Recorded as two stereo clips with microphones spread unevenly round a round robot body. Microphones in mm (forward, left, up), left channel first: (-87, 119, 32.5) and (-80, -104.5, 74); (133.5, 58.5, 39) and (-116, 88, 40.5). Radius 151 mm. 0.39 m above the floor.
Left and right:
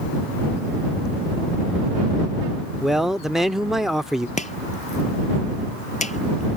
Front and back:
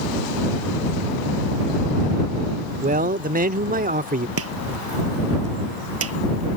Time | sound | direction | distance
2.8 | a man speaking | 170° left | ?
4.4 | chopping | 150° left | ?